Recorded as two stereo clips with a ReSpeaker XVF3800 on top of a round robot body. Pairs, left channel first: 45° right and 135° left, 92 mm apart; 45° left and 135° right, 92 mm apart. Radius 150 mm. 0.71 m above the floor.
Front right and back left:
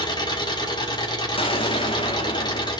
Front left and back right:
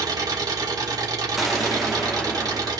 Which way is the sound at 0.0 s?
85° right.